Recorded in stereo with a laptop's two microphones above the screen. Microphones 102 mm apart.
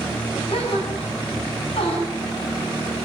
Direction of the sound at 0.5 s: 70° left (ahead or behind).